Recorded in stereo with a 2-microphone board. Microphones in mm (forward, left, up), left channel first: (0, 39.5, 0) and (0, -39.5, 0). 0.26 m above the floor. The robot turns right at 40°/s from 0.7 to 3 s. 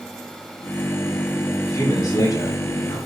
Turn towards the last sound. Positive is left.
turn(degrees=90)